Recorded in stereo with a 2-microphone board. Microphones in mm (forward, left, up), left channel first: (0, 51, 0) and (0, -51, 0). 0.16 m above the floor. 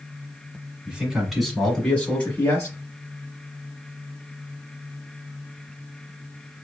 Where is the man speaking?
10° right (ahead or behind), 1.4 m; by 2.8 s 30° left (ahead or behind), 1.4 m.